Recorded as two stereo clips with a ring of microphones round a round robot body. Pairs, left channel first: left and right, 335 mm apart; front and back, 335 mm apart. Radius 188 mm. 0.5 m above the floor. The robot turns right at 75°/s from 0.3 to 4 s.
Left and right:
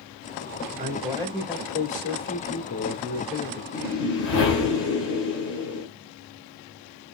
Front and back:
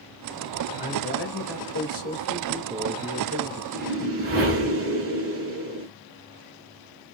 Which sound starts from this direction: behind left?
A whoosh, at 3.7 s.